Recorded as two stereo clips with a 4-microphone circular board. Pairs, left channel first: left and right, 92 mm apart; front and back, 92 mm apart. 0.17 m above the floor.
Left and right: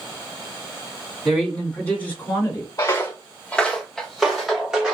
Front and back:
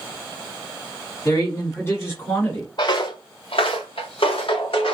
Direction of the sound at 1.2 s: Straight ahead.